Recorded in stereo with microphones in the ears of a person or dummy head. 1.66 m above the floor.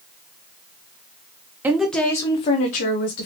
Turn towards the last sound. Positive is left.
turn(degrees=55)  # may be behind; listen again after turning